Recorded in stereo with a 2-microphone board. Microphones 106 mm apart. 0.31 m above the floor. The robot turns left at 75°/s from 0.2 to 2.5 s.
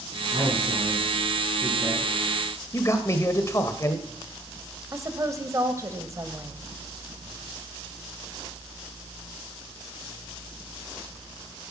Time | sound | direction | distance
0.3 | a man speaking | 70° right | 4 m
2.7 | a man speaking | 30° left (ahead or behind) | 1.4 m
4.9 | a woman speaking | 30° right (ahead or behind) | 1.4 m